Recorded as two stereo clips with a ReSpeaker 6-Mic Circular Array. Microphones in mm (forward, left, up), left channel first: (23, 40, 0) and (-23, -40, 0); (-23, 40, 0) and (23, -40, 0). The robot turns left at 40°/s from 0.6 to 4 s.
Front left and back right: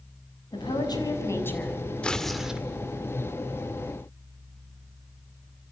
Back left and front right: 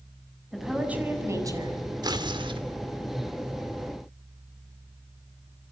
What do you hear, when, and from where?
0.5 s a woman speaking: 30° left, 6.5 m; by 1.9 s 25° right, 6.5 m
2.0 s tearing paper: 20° right, 2.5 m; by 2.6 s 45° right, 2.5 m